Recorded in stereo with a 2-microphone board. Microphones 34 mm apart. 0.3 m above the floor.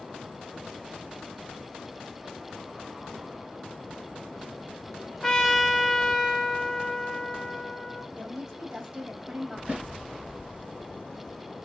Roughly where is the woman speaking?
Right.